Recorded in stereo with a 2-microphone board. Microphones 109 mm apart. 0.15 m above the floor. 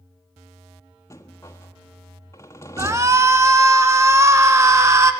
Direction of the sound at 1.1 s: 25° left (ahead or behind).